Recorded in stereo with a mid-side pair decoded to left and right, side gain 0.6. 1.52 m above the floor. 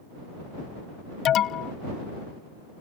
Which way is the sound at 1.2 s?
55° left.